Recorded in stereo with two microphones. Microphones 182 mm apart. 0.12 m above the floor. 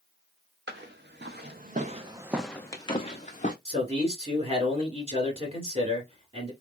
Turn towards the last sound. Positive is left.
turn(degrees=-30)  # may be behind; listen again after turning